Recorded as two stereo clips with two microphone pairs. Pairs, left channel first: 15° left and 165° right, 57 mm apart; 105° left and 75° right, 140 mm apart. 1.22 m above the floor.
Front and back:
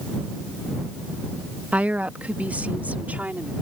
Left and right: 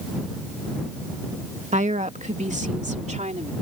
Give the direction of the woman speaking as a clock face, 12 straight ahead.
3 o'clock.